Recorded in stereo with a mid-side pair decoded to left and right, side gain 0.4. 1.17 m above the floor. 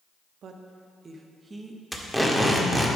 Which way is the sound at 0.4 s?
65° right.